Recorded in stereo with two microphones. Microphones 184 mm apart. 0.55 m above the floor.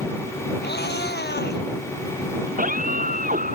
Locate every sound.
0.6 s a cat meowing: 75° left (ahead or behind)
2.5 s a scream: 50° right (ahead or behind)